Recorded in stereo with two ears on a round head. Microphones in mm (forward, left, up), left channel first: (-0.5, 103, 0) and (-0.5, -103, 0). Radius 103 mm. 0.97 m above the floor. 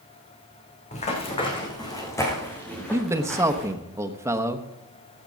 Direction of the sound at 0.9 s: 30° left (ahead or behind).